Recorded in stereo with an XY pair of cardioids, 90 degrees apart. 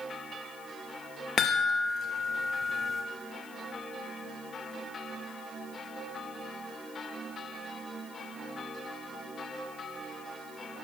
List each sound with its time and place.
1.4 s a chime: 55° left, 0.5 m